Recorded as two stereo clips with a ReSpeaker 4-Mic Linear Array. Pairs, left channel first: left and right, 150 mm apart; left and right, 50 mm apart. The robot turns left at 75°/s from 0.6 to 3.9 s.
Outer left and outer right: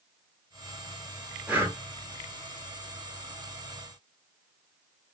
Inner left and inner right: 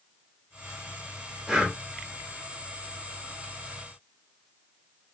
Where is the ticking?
I don't hear ticking.